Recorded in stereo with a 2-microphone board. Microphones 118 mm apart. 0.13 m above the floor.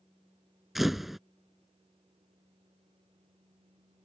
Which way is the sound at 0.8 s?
Centre (ahead or behind).